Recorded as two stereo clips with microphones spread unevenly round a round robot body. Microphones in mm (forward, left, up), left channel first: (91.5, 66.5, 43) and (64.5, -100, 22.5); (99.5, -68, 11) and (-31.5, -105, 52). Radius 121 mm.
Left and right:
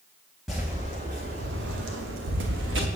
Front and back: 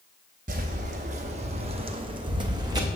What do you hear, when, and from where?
0.5 s footsteps: 165° left, 0.8 m; by 2.9 s 110° right, 1.2 m